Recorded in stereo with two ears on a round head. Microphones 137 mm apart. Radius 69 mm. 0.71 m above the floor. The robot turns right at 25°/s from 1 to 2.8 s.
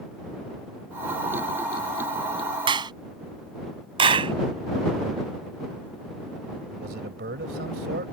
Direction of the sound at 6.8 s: 70° right (ahead or behind).